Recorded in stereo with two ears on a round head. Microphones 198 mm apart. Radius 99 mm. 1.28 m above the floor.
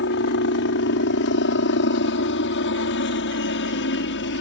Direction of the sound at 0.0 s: 55° left (ahead or behind).